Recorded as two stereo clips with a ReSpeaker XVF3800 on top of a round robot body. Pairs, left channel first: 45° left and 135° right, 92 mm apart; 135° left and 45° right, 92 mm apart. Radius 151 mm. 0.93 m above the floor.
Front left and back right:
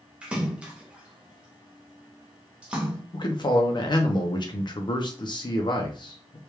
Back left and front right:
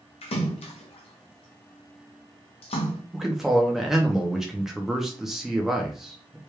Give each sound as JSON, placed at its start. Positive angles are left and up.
{"t": 0.2, "sound": "a splash", "azimuth_deg": 145, "distance_m": 0.6}
{"t": 3.1, "sound": "a man speaking", "azimuth_deg": 40, "distance_m": 0.8}